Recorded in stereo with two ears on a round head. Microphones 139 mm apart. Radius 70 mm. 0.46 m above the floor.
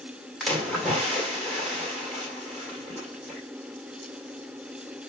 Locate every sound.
0.4 s a splash: centre (ahead or behind), 1.7 m